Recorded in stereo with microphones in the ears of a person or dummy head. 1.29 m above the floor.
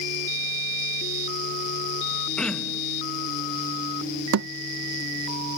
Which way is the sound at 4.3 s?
60° right (ahead or behind).